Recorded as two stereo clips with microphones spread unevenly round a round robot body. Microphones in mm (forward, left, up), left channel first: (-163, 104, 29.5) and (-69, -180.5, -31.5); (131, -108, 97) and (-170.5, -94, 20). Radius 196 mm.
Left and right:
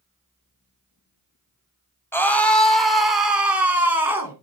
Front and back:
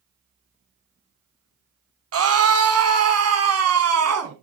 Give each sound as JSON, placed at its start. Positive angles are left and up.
{"t": 2.1, "sound": "a scream", "azimuth_deg": -165, "distance_m": 1.8}